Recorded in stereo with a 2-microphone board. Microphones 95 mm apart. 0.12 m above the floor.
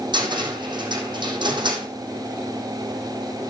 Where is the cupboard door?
55° right (ahead or behind), 3.5 m.